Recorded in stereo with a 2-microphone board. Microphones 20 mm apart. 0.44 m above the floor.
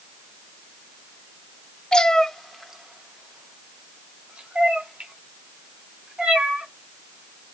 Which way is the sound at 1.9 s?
45° left (ahead or behind).